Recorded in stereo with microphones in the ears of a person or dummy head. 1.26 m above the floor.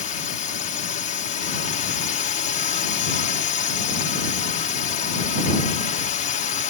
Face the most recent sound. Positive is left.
turn(degrees=40)  # may be behind; listen again after turning